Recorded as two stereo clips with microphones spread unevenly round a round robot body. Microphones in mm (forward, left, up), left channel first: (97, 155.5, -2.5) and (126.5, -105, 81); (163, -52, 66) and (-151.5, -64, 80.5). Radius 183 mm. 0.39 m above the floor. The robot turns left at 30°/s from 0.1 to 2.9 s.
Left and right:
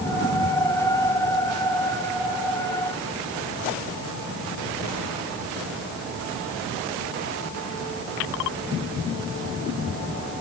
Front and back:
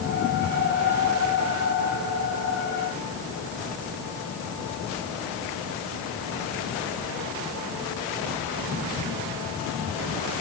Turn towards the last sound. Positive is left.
No sound to turn to.